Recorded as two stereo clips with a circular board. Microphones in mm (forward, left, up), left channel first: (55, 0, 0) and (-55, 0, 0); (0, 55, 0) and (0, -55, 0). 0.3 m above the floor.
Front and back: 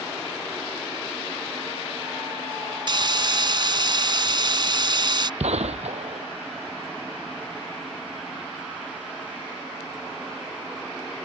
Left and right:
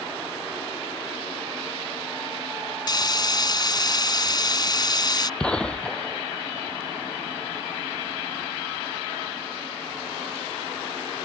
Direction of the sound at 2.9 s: 140° left.